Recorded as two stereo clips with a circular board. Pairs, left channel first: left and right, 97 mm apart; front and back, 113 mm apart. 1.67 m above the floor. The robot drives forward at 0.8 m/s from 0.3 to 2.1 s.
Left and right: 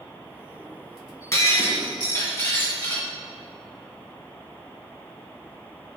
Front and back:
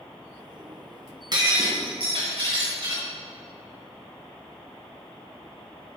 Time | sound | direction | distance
1.3 | breaking glass | 140° left | 2.5 m